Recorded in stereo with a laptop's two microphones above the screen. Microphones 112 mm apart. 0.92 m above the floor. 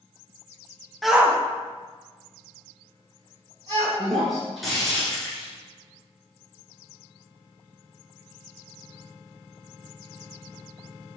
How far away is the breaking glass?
About 2 m.